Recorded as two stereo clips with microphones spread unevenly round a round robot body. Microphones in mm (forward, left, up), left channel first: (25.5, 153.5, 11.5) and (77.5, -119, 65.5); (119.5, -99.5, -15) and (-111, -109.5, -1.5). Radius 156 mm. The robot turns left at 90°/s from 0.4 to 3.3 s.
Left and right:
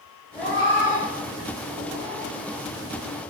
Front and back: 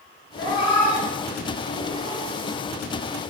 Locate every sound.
0.3 s a cat meowing: 40° left, 1.9 m; by 2.3 s 130° right, 1.9 m